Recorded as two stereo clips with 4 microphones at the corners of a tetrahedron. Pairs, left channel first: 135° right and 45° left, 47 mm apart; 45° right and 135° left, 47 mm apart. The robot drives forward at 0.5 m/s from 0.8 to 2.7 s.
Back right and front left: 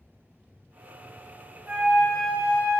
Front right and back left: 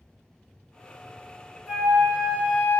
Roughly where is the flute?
Left.